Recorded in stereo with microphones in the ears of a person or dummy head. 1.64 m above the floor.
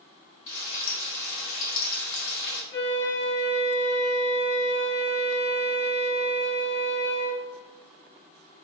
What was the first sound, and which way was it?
Frying, 80° left.